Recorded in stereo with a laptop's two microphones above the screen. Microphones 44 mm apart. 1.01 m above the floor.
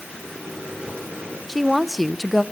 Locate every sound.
0.1 s a microwave: 30° right (ahead or behind), 9.5 m
1.5 s a woman speaking: centre (ahead or behind), 0.7 m